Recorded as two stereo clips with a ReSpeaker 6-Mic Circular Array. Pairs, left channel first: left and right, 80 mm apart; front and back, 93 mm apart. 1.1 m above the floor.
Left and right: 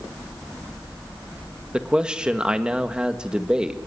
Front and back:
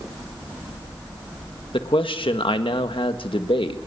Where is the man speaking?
10° right, 1.6 m.